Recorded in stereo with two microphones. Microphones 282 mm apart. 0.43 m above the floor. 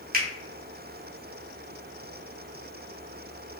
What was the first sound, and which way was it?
A finger snap, 30° right (ahead or behind).